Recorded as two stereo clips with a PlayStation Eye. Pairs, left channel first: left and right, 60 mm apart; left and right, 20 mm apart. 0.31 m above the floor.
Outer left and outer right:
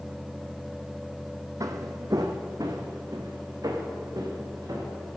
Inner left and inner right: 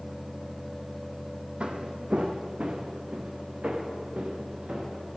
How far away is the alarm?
No alarm in this recording.